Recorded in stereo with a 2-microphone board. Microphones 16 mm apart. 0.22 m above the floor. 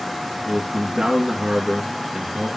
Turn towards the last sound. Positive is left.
turn(degrees=-50)  # may be behind; listen again after turning